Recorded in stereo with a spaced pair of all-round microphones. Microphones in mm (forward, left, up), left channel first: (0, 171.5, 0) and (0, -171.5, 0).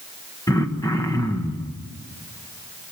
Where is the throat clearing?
10° left (ahead or behind), 1.5 m.